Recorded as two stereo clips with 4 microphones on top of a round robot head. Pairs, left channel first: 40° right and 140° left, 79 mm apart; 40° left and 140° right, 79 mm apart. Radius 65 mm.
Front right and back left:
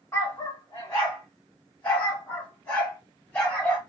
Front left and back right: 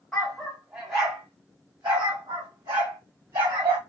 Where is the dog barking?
30° right, 1.0 m; by 3.8 s 115° right, 2 m.